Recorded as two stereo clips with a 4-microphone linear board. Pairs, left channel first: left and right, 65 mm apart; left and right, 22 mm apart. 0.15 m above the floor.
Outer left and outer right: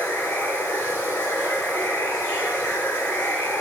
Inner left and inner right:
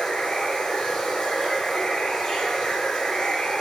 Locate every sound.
0.0 s running water: 35° left (ahead or behind), 1.5 m